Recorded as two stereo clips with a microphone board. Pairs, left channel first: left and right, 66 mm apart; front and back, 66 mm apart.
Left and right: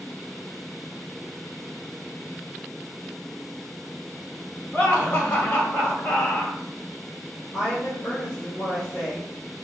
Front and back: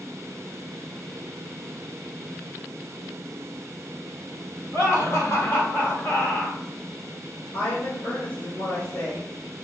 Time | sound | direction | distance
4.7 | laughter | 20° left | 2 m
7.5 | a woman speaking | 30° left | 2.0 m